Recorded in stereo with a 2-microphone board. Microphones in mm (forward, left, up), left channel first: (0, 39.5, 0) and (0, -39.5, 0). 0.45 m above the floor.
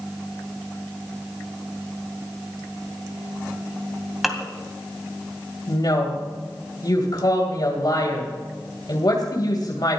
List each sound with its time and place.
4.2 s dishes clattering: centre (ahead or behind), 2.0 m
5.7 s a woman speaking: 60° left (ahead or behind), 2.5 m